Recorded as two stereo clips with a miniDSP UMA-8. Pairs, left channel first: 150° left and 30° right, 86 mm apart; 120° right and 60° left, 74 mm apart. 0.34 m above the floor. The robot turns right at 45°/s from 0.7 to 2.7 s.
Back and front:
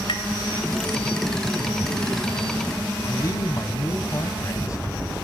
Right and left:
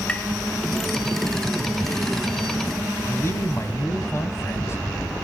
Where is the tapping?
165° left, 1.8 m.